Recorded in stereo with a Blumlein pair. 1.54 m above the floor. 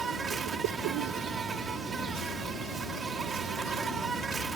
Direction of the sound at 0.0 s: 15° right.